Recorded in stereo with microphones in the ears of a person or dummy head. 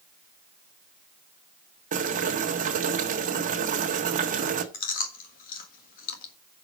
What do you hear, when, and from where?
1.9 s boiling: 50° right (ahead or behind), 1.4 m
4.7 s chewing: 50° left (ahead or behind), 1.5 m